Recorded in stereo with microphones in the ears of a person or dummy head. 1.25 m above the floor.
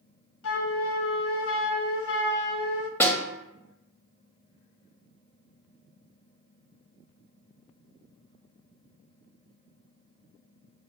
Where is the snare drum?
10° left (ahead or behind), 0.7 m.